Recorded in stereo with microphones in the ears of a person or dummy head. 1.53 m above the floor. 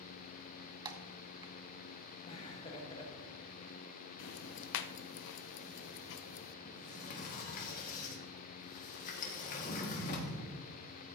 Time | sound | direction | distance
0.8 | typing on a keyboard | 20° right (ahead or behind) | 1.1 m
2.3 | laughter | 35° left (ahead or behind) | 1.9 m
4.2 | ticking | 65° left (ahead or behind) | 0.7 m
6.7 | a sliding door | 50° left (ahead or behind) | 1.9 m